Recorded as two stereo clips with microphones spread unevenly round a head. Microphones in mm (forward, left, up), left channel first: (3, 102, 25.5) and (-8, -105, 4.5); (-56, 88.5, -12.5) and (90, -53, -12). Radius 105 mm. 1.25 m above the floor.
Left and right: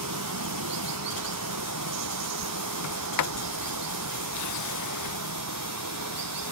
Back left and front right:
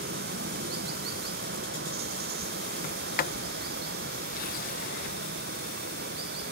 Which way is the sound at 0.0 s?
90° right.